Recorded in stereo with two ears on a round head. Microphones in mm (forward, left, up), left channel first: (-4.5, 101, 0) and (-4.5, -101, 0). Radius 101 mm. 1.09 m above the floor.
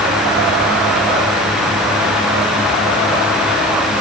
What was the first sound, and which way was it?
Only background noise.